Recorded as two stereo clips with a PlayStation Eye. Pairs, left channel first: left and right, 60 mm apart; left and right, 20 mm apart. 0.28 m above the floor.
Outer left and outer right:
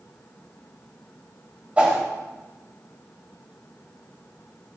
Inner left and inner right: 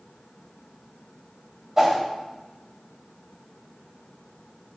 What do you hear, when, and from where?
1.8 s a whoosh: 25° right (ahead or behind), 1.4 m